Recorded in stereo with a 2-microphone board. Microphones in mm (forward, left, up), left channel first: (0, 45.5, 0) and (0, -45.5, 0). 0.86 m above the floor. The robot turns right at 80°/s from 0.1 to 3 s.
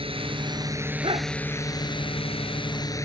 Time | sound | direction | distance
0.0 | a drone | 85° right | ?
1.0 | a dog barking | 70° right (ahead or behind) | ?